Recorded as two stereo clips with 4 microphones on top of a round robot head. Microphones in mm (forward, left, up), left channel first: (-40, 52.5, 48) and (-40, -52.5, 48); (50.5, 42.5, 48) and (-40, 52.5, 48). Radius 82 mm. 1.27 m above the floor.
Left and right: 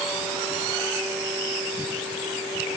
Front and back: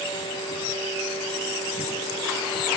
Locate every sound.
Only background noise.